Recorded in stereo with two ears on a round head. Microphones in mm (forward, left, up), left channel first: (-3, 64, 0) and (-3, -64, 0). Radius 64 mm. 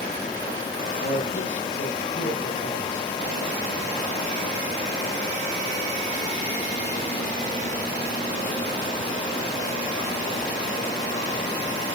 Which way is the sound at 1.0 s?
60° left (ahead or behind).